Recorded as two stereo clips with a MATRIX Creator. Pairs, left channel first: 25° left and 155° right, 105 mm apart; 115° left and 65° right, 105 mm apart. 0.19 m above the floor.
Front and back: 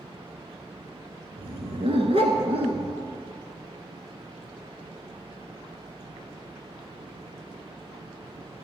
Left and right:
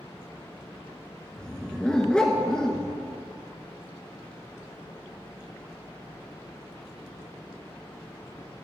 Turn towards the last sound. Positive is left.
turn(degrees=-165)